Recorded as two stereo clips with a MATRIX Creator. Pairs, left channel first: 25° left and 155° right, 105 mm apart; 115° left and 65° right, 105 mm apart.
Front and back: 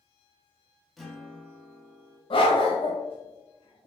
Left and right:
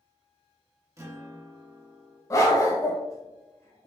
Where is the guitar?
65° right, 0.8 m.